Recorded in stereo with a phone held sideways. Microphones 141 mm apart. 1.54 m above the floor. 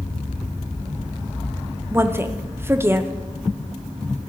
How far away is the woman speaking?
About 0.6 m.